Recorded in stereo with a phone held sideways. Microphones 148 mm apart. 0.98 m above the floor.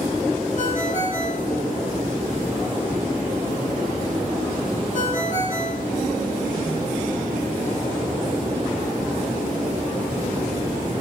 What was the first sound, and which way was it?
A ringtone, 65° left (ahead or behind).